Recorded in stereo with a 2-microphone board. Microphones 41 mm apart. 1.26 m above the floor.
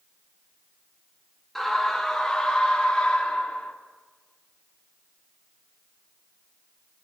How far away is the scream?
About 2.5 m.